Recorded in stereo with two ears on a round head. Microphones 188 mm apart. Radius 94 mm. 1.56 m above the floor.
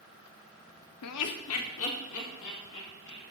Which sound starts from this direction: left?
Laughter, at 1.0 s.